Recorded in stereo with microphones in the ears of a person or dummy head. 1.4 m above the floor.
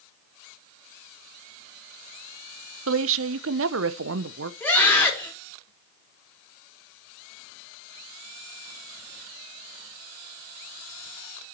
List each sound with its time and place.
2.9 s a woman speaking: 80° right, 0.7 m
4.6 s a scream: 10° left (ahead or behind), 4 m